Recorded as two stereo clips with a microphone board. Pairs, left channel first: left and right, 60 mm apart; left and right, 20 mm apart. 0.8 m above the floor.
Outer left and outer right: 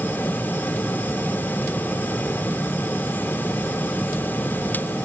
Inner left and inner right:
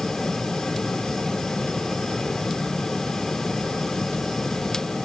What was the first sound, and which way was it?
Only background noise.